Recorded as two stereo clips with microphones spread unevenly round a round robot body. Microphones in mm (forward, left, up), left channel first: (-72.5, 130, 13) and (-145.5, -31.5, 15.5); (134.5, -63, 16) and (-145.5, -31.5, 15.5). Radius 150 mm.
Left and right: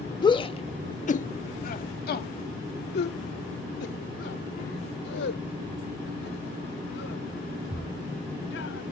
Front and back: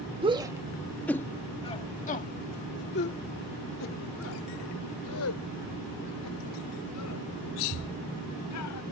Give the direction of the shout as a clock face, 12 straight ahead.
8 o'clock.